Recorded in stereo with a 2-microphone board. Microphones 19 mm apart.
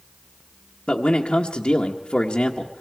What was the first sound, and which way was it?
A man speaking, 70° left (ahead or behind).